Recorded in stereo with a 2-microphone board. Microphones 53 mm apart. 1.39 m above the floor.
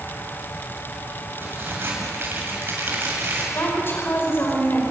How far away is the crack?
About 8 m.